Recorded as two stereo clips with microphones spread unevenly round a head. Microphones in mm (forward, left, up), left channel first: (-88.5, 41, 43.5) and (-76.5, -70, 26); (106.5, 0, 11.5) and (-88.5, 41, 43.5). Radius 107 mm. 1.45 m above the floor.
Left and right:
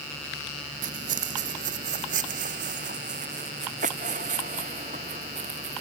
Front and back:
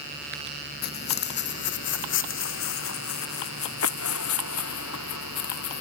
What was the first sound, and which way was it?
Footsteps, 60° right.